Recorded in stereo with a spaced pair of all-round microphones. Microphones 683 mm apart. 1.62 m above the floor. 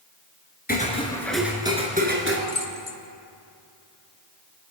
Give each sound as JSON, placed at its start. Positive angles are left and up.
{"t": 0.7, "sound": "footsteps", "side_deg": 15, "distance_m": 1.6}
{"t": 2.5, "sound": "keys jangling", "side_deg": 40, "distance_m": 0.9}